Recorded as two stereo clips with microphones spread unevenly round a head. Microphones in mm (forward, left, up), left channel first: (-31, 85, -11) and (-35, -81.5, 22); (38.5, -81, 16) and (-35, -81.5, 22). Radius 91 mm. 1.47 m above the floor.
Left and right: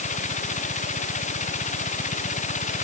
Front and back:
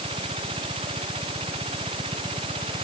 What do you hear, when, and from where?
0.0 s a machine running: 135° left